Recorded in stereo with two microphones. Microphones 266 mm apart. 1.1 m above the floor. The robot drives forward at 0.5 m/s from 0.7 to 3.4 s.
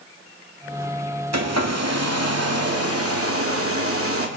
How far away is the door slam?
No door slam in this recording.